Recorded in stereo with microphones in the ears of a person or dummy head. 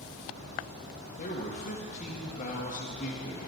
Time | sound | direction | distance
1.2 | a man speaking | 40° left (ahead or behind) | 1.2 m